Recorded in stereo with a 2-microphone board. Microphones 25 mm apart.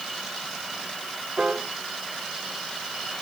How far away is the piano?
About 1.6 m.